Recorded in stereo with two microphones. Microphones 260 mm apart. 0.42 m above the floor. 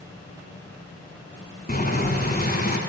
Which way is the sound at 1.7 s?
35° left (ahead or behind).